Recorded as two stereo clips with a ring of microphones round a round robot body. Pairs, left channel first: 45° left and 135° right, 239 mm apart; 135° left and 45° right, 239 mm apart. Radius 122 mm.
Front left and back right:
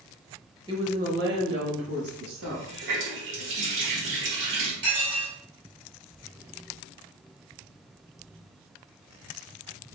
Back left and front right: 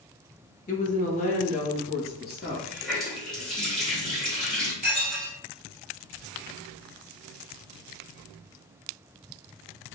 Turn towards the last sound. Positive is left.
turn(degrees=-105)